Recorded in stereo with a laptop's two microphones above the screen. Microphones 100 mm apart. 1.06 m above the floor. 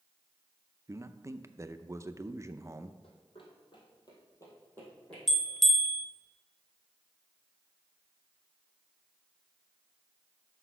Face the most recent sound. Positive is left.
turn(degrees=0)  # may be behind; listen again after turning